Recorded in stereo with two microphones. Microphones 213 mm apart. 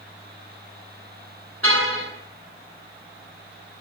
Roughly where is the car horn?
Right.